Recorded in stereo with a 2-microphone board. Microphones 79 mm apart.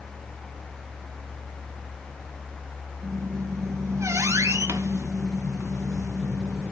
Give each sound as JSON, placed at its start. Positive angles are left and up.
{"t": 3.0, "sound": "a squeak", "side_deg": -40, "distance_m": 1.0}